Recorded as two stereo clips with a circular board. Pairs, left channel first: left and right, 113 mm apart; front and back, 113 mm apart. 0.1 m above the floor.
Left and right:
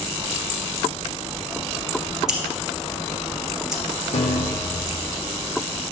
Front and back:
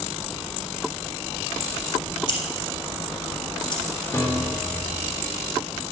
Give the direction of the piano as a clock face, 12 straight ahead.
10 o'clock.